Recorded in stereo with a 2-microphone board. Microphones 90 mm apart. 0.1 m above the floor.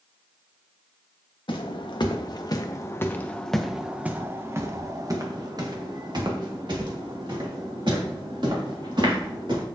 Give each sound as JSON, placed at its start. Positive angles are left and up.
{"t": 1.5, "sound": "footsteps", "side_deg": 65, "distance_m": 1.3}